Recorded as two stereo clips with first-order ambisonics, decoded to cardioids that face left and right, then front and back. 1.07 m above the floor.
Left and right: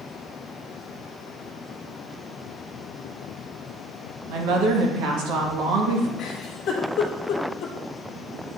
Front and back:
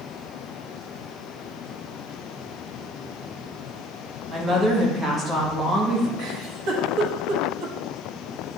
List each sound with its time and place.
4.3 s a woman speaking: 110° right, 1.5 m
6.2 s a giggle: 140° left, 1.3 m